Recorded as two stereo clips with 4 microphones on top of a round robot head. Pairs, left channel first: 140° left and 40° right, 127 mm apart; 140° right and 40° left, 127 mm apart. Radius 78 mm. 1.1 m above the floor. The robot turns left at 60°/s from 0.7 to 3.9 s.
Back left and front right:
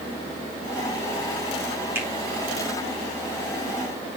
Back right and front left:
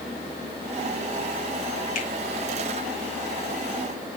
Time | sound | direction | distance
1.9 | a finger snap | 115° right | 2.5 m